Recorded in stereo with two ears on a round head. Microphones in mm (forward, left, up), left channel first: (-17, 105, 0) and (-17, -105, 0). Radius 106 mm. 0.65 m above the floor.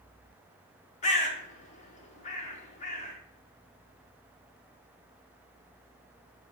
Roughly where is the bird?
Left.